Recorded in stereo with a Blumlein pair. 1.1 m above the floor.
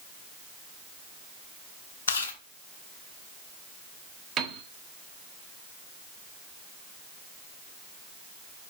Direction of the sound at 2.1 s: 60° left.